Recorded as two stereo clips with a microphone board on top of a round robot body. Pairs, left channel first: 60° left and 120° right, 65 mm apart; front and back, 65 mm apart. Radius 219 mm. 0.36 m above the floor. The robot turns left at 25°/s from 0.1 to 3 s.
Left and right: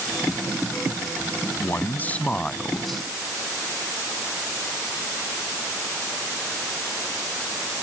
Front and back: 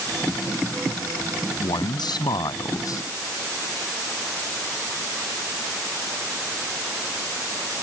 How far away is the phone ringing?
No phone ringing in this recording.